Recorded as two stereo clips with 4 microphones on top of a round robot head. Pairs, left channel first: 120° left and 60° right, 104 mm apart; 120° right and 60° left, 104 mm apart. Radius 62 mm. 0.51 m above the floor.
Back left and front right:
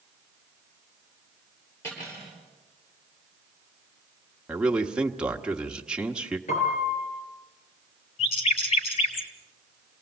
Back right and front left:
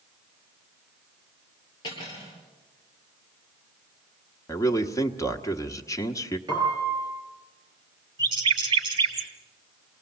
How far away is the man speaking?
About 1.4 m.